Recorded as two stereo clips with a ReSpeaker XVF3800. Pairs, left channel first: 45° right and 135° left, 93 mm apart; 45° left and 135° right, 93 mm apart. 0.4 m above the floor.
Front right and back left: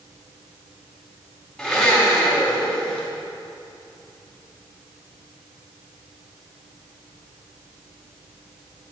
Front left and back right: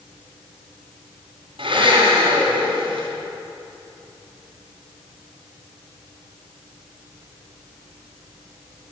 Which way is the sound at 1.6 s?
125° right.